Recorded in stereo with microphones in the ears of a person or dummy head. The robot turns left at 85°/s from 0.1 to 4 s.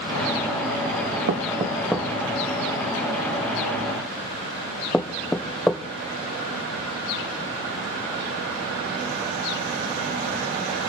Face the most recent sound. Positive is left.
turn(degrees=5)  # may be behind; listen again after turning